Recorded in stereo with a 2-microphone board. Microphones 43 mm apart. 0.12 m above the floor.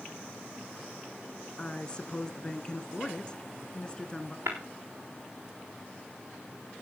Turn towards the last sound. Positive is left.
turn(degrees=-85)